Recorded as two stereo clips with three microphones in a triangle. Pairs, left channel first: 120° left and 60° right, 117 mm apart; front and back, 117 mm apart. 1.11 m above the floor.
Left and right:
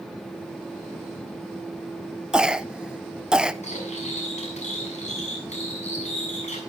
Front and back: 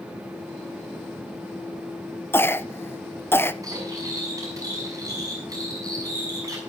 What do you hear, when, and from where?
2.3 s a cough: 10° left, 0.5 m
3.6 s cutlery clinking: 120° left, 6 m